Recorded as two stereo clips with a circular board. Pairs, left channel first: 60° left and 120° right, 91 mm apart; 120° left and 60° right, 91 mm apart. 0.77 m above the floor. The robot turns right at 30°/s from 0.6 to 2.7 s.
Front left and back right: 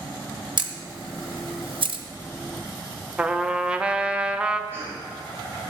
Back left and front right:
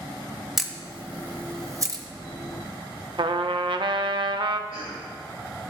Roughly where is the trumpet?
Ahead right.